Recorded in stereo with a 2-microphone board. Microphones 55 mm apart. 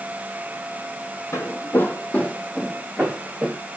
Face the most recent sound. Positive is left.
turn(degrees=-15)  # may be behind; listen again after turning